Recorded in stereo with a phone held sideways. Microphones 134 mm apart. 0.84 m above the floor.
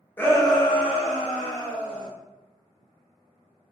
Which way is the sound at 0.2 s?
15° left (ahead or behind).